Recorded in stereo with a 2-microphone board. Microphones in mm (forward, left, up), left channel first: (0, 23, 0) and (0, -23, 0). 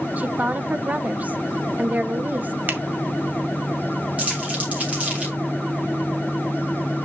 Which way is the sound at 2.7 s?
45° right (ahead or behind).